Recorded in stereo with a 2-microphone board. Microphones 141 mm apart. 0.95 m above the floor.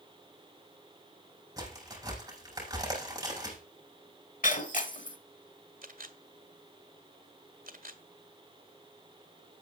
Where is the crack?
25° right (ahead or behind), 6.5 m.